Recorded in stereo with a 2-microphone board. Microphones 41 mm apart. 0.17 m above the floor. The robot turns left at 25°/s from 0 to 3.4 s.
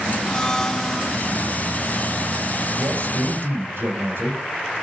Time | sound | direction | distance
0.2 | a blender | 20° left (ahead or behind) | 0.6 m
2.8 | a man speaking | 75° right (ahead or behind) | 7 m